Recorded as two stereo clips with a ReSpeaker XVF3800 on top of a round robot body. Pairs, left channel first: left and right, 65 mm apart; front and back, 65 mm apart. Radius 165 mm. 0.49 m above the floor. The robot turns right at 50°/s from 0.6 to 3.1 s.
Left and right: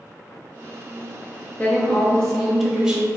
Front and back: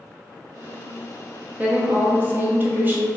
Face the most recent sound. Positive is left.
turn(degrees=-150)